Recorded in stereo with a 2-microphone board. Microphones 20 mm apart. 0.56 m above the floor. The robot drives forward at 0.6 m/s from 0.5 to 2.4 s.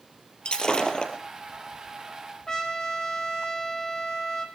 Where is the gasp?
I don't hear a gasp.